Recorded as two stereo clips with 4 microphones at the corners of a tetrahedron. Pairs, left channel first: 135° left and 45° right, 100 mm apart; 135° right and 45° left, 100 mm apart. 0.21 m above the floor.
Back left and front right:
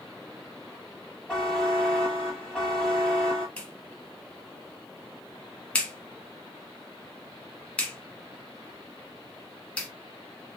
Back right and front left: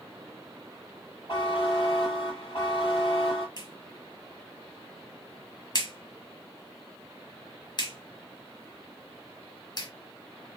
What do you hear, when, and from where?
1.3 s a buzzer: 150° right, 2.5 m
3.6 s a clap: 155° right, 1.5 m